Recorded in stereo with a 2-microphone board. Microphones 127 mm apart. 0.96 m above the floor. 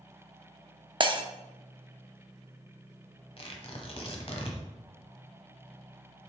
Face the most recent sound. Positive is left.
turn(degrees=50)  # may be behind; listen again after turning